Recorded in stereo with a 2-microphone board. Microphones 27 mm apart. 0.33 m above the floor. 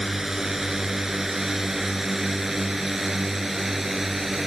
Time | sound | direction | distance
0.0 | a drone | 10° right (ahead or behind) | ?